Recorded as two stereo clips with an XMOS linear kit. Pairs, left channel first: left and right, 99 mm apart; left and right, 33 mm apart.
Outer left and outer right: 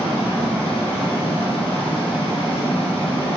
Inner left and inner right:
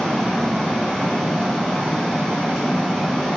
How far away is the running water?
About 1.7 m.